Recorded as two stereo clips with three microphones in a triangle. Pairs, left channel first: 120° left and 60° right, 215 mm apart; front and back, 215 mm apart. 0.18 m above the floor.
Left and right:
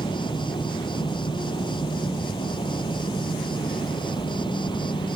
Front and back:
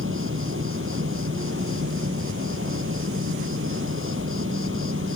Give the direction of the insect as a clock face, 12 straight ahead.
6 o'clock.